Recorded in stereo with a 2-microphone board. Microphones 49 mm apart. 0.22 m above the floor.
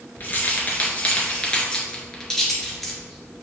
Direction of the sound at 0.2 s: 35° left (ahead or behind).